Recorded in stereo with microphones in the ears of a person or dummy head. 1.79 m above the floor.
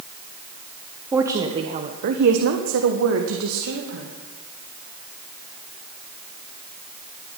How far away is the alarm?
No alarm in this recording.